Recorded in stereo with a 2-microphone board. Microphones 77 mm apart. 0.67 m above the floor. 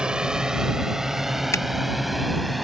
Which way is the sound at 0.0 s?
10° right (ahead or behind).